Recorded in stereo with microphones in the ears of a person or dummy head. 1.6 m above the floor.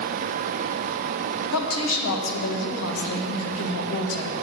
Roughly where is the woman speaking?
Left.